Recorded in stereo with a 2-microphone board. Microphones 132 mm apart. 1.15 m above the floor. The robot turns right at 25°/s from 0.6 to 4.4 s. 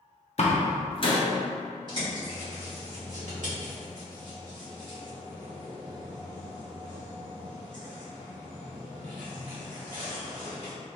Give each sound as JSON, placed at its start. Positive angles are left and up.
{"t": 0.4, "sound": "a door slam", "side_deg": 50, "distance_m": 0.6}
{"t": 1.9, "sound": "a bird", "side_deg": -35, "distance_m": 1.7}